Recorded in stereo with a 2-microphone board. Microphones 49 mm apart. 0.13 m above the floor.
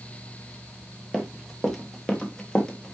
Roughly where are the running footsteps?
Centre.